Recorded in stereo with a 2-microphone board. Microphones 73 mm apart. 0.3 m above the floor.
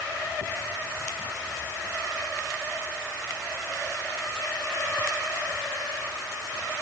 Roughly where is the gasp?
No gasp in this recording.